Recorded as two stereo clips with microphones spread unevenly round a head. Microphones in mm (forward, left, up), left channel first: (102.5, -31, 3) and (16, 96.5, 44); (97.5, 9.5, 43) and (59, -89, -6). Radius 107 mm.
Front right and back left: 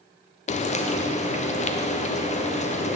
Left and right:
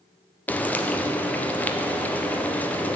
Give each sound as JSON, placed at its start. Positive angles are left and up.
{"t": 0.5, "sound": "frying", "azimuth_deg": -10, "distance_m": 0.7}